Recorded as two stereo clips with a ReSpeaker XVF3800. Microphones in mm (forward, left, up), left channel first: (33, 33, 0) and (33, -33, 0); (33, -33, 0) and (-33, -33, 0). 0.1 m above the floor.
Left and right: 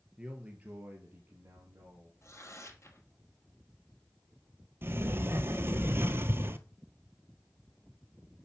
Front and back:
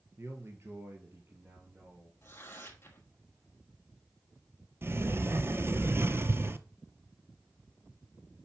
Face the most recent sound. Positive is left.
turn(degrees=-135)